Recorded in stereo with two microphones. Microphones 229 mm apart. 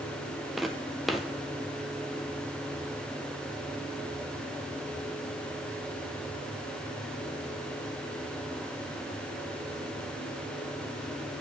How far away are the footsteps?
About 0.8 m.